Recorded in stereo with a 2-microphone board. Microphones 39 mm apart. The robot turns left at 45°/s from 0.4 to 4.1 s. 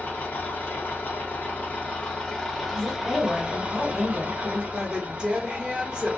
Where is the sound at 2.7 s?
30° left, 1.5 m; by 4.6 s 30° right, 1.5 m.